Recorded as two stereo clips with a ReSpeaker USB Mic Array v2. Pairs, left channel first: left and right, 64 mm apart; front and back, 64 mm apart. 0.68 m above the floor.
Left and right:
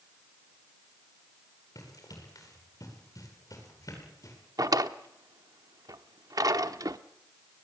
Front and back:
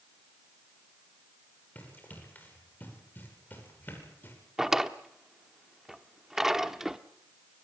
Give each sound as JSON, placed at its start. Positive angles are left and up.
{"t": 1.8, "sound": "running footsteps", "azimuth_deg": 65, "distance_m": 10.0}
{"t": 4.6, "sound": "a drawer", "azimuth_deg": -100, "distance_m": 1.0}